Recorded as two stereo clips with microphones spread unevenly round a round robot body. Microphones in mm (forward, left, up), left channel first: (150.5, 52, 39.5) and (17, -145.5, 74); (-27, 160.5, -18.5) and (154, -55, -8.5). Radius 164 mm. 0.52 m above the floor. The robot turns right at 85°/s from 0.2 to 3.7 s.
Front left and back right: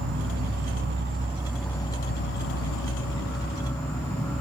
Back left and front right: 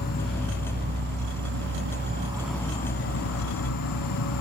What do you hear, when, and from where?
0.0 s an insect: 160° right, 0.7 m; by 4.4 s 140° left, 0.7 m